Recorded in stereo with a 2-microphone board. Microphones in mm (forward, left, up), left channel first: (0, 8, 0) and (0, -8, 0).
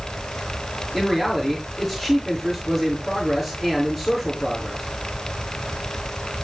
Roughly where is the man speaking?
Centre.